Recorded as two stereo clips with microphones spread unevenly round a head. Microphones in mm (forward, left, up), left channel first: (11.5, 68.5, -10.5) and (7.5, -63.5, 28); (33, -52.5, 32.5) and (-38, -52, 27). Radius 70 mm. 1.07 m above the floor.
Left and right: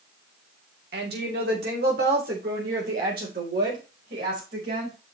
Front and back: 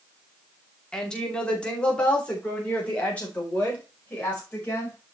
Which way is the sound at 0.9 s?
80° right.